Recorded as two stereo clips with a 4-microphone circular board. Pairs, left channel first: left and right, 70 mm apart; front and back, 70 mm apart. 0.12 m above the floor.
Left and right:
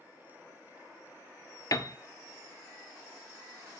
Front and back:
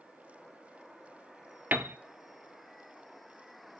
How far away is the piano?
About 0.7 m.